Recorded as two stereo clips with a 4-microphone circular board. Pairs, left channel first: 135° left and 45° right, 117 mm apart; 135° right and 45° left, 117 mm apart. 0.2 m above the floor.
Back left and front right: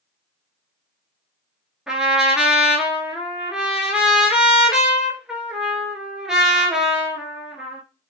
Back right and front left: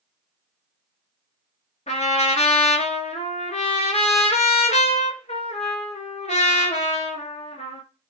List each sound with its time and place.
1.9 s a trumpet: 130° right, 0.7 m